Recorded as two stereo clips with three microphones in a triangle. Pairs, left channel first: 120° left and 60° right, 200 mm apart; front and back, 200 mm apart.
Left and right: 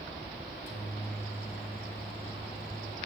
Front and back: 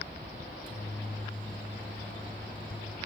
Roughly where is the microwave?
Ahead left.